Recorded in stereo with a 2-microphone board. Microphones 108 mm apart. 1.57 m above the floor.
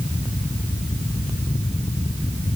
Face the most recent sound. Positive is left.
No sound to turn to.